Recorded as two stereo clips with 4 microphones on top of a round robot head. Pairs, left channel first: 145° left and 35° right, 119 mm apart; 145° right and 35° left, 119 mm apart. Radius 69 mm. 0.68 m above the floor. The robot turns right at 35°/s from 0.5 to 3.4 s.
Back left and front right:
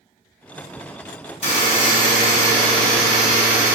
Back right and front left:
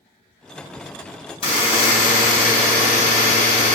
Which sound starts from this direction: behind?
A buzzer, at 1.4 s.